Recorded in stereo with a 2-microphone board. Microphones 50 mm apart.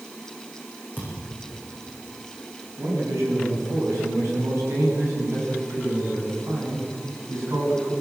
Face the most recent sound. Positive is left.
turn(degrees=-85)